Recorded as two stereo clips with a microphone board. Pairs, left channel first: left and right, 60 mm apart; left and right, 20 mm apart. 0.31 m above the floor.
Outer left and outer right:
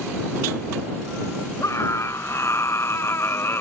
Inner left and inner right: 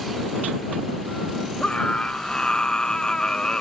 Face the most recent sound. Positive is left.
turn(degrees=45)  # may be behind; listen again after turning